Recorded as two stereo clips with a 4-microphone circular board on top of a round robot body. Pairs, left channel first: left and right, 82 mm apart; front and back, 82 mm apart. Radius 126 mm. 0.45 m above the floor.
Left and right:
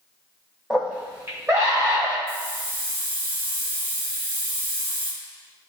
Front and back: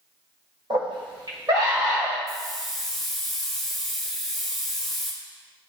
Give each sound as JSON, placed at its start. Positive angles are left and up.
{"t": 0.7, "sound": "a scream", "azimuth_deg": -175, "distance_m": 2.5}
{"t": 2.3, "sound": "a hiss", "azimuth_deg": -85, "distance_m": 3.0}